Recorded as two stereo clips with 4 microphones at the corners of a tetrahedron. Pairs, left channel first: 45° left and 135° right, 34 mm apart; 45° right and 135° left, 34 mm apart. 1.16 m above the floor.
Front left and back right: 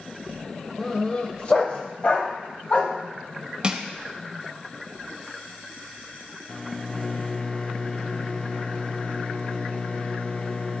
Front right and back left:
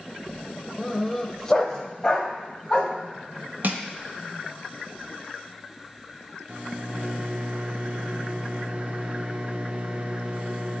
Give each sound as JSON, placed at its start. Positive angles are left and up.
{"t": 0.8, "sound": "a dog barking", "azimuth_deg": 50, "distance_m": 0.9}
{"t": 3.6, "sound": "crushing", "azimuth_deg": 160, "distance_m": 1.0}
{"t": 6.5, "sound": "a microwave", "azimuth_deg": 100, "distance_m": 0.7}